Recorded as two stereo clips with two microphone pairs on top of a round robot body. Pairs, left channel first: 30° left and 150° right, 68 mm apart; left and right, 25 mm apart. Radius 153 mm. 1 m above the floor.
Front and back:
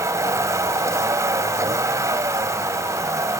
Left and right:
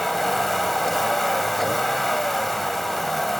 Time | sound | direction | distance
0.0 | a vehicle | 170° left | ?